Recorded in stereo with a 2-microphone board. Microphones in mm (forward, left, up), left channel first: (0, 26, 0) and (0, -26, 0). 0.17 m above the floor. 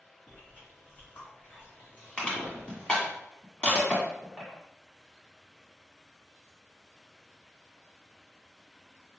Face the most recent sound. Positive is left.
turn(degrees=20)  # may be behind; listen again after turning